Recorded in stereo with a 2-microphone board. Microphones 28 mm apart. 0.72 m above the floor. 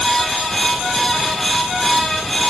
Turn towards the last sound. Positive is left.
No sound to turn to.